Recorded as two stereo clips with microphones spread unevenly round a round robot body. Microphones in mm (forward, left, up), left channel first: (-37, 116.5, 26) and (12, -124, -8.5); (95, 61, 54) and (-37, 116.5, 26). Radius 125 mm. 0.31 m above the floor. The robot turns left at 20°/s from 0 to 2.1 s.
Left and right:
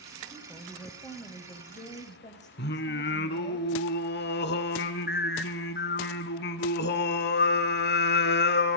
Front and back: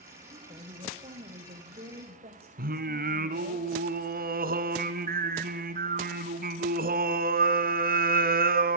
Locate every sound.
0.3 s a woman speaking: 160° right, 1.8 m; by 3.6 s 165° left, 1.8 m
2.6 s singing: 150° left, 1.2 m